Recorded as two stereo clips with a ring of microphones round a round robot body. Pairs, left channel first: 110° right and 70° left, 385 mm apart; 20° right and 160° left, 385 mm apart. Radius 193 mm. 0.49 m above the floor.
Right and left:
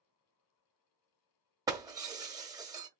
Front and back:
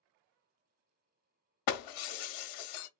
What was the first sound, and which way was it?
Breaking glass, 10° right.